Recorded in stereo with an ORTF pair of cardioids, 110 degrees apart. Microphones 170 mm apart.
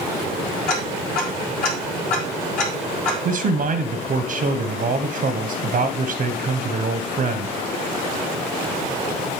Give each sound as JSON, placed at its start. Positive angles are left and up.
{"t": 0.7, "sound": "ticking", "azimuth_deg": 60, "distance_m": 4.0}
{"t": 3.2, "sound": "a man speaking", "azimuth_deg": -50, "distance_m": 0.7}